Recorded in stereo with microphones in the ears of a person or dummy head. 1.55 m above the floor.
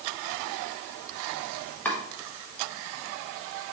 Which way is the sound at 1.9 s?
10° left (ahead or behind).